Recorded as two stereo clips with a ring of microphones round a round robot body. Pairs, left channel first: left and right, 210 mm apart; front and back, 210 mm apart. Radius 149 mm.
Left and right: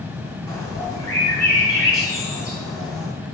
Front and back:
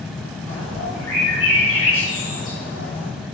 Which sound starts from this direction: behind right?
A bird, at 0.5 s.